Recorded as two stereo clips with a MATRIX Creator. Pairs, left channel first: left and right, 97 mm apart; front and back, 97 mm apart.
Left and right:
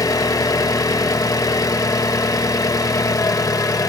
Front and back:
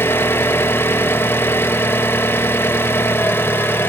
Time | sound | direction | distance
0.0 | an engine running | 55° left | 0.8 m